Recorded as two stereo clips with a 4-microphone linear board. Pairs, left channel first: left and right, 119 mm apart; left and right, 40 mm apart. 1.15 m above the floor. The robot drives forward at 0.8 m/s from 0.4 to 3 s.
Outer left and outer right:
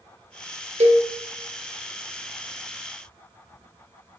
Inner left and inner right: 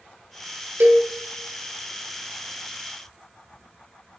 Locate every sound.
0.8 s a cowbell: 60° right (ahead or behind), 0.8 m; by 1.1 s 50° right (ahead or behind), 0.9 m